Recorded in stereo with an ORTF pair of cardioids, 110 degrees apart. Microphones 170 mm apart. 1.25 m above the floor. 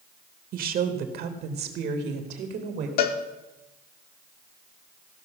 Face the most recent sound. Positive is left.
turn(degrees=70)